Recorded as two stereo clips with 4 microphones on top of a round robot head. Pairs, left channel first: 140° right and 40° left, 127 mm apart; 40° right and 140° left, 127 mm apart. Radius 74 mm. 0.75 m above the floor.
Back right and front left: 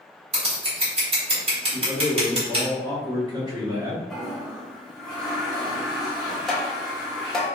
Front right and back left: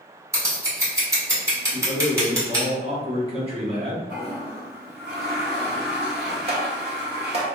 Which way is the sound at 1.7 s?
100° left.